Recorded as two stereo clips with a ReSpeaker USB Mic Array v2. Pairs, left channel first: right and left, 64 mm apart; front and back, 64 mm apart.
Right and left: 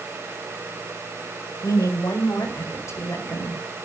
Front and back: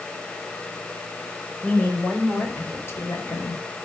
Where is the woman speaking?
70° right, 5.5 m; by 3.6 s 35° right, 5.5 m.